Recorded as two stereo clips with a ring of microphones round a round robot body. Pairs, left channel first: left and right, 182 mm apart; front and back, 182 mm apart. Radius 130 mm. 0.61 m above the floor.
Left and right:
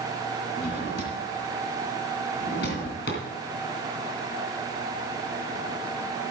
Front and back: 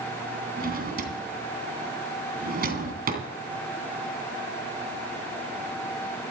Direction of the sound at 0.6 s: 145° left.